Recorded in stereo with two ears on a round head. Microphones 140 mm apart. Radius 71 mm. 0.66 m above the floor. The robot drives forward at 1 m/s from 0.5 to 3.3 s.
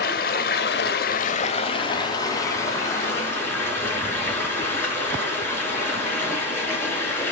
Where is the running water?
60° left (ahead or behind), 0.8 m; by 7.3 s 15° left (ahead or behind), 2.5 m.